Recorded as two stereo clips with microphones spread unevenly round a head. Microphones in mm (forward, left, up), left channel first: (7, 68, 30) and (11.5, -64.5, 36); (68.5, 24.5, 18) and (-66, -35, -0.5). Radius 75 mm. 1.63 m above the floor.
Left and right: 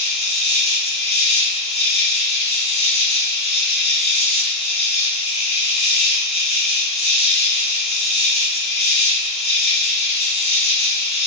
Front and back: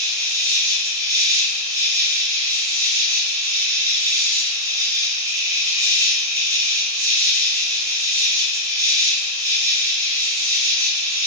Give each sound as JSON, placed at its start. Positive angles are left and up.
{"t": 0.0, "sound": "an insect", "azimuth_deg": 135, "distance_m": 1.4}